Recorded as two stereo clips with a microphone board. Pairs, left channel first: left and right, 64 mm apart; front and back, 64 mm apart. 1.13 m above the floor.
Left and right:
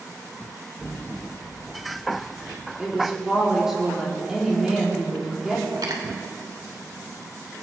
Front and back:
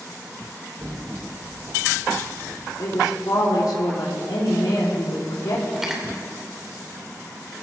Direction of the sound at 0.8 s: 165° left.